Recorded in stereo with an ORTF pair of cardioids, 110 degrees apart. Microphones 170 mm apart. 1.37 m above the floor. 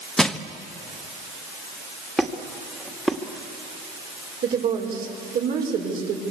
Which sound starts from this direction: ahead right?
A woman speaking, at 4.4 s.